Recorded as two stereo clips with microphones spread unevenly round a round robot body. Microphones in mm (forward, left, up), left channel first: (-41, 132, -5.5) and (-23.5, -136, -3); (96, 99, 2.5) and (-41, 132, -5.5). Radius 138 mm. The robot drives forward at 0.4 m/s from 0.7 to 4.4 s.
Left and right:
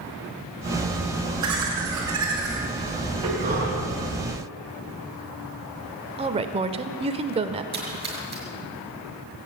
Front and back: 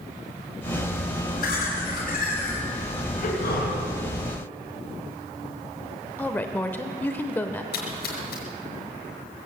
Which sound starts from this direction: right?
A woman speaking, at 6.2 s.